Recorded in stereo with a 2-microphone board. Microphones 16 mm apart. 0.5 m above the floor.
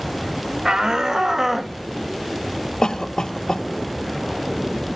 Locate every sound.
0.7 s a shout: 55° right (ahead or behind), 1.8 m; by 1.8 s 20° right (ahead or behind), 1.5 m
2.8 s a cough: 70° left (ahead or behind), 1.9 m